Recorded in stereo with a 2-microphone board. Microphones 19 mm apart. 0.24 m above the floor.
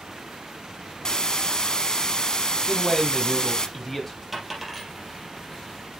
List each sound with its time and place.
1.1 s a hiss: 40° left (ahead or behind), 0.9 m
2.7 s a man speaking: 10° left (ahead or behind), 1.1 m
4.3 s a dropped coin: centre (ahead or behind), 3 m